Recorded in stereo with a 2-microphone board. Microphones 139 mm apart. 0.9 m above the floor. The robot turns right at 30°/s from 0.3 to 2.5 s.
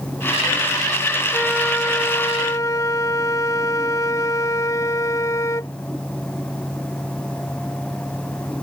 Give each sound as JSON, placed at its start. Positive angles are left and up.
{"t": 1.3, "sound": "a flute", "azimuth_deg": 5}